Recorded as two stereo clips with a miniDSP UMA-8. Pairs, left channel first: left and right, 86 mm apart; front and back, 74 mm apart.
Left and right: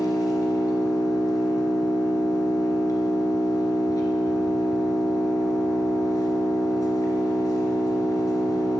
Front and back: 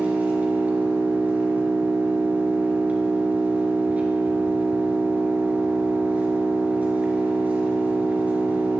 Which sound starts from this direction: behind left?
An engine running, at 0.0 s.